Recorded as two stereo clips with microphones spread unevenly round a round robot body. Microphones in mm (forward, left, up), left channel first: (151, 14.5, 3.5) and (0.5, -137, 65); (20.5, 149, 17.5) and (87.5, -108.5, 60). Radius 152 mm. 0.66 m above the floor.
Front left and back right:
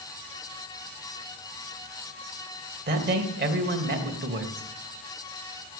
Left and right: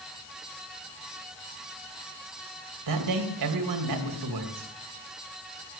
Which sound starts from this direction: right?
A man speaking, at 2.9 s.